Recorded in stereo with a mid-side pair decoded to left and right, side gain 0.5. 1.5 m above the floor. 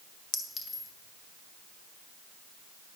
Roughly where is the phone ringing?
I don't hear a phone ringing.